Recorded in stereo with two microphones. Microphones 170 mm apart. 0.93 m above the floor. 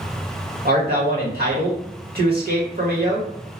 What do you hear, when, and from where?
0.7 s a man speaking: 65° right (ahead or behind), 1.4 m